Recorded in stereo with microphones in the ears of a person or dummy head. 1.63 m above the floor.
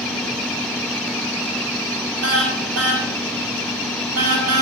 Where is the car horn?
85° right, 8 m; by 4.6 s 80° right, 7.5 m.